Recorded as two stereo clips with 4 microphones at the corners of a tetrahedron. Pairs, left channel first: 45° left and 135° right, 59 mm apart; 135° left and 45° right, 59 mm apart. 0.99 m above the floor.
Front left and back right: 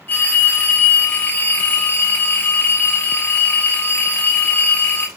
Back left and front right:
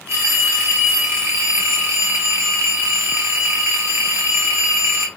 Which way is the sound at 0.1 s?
10° right.